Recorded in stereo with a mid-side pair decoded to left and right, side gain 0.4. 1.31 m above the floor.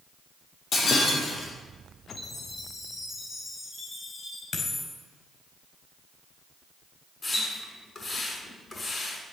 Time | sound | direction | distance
0.7 | breaking glass | 55° left | 6.5 m
2.1 | a chime | 55° left | 6.5 m
4.5 | a dropped coin | 55° left | 4 m
7.2 | a splash | 40° left | 6.5 m